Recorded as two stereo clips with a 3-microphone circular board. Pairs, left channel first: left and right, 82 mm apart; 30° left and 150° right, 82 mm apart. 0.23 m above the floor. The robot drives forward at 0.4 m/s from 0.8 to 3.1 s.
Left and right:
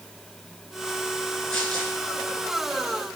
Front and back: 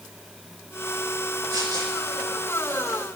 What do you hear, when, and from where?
1.5 s tearing paper: 175° left, 3.5 m